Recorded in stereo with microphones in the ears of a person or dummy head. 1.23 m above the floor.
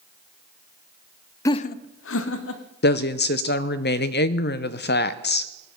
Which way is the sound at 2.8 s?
50° left (ahead or behind).